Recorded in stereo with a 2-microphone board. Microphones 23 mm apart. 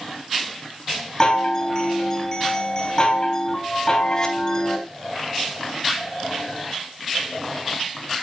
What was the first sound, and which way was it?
A chime, 30° left (ahead or behind).